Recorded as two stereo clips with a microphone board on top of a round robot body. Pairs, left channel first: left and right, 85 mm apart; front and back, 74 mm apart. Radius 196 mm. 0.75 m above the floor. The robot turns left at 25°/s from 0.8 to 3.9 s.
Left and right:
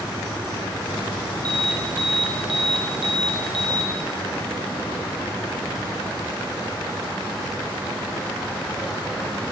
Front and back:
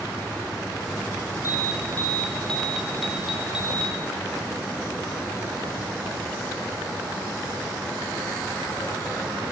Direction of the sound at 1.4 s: 50° right.